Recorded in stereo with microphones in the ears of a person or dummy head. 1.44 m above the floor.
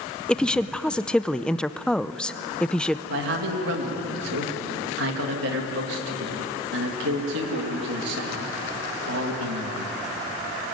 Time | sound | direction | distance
0.3 | a woman speaking | 5° left (ahead or behind) | 0.6 m
3.1 | a man speaking | 65° right (ahead or behind) | 2 m